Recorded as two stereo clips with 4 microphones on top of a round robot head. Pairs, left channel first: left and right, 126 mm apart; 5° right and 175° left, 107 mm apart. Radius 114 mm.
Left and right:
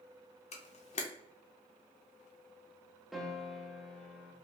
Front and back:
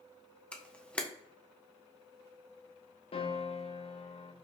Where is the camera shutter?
75° left, 0.8 m.